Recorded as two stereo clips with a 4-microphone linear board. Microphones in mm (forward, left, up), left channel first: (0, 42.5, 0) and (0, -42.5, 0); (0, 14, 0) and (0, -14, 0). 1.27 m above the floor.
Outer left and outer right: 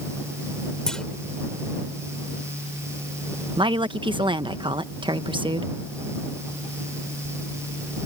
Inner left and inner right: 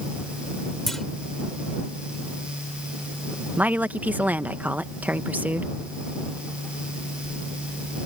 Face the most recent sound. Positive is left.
turn(degrees=-70)  # may be behind; listen again after turning